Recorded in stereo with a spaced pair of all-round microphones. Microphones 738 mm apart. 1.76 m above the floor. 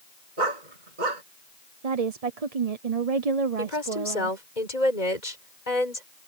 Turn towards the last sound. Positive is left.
turn(degrees=65)  # may be behind; listen again after turning